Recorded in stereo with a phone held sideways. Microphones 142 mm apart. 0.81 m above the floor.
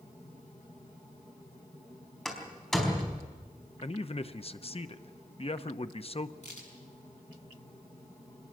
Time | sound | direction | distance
2.2 | a door slam | 5° left (ahead or behind) | 4 m
3.8 | a man speaking | 45° left (ahead or behind) | 0.8 m
6.4 | a crack | 55° left (ahead or behind) | 6 m